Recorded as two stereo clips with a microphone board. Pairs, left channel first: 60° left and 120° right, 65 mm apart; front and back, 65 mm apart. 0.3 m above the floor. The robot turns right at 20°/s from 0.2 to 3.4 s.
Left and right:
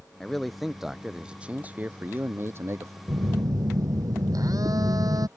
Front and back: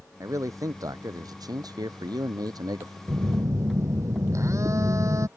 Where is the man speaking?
145° left; by 3.0 s 160° right.